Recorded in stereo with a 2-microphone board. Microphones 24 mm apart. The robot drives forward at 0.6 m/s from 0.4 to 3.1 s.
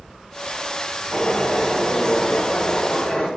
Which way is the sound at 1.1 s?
25° left (ahead or behind).